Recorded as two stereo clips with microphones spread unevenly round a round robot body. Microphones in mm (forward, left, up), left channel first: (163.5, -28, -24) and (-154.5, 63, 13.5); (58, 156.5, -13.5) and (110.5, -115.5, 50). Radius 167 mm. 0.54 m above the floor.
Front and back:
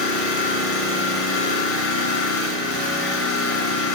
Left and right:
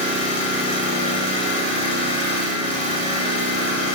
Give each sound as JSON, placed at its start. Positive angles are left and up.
{"t": 0.0, "sound": "an engine running", "azimuth_deg": 35, "distance_m": 1.7}